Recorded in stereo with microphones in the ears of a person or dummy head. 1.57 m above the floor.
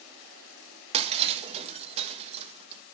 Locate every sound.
0.9 s breaking glass: 30° right (ahead or behind), 1.2 m